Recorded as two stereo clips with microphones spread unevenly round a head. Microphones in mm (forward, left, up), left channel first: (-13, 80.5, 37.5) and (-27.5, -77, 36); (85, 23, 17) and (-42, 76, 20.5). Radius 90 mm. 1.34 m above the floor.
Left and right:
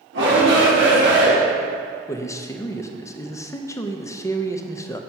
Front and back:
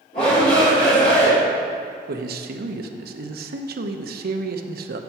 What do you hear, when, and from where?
0.1 s a shout: 80° right, 3.5 m
2.1 s a man speaking: 155° left, 0.8 m